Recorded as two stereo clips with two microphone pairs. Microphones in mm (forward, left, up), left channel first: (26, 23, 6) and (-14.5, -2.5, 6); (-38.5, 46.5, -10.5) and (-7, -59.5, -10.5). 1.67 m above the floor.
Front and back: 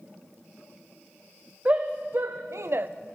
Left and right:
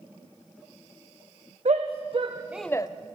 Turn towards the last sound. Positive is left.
turn(degrees=160)